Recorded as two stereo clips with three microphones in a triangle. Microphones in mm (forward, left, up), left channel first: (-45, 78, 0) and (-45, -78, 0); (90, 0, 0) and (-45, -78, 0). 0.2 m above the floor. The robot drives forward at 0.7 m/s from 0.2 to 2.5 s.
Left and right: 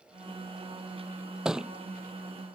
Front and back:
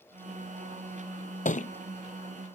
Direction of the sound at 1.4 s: 5° right.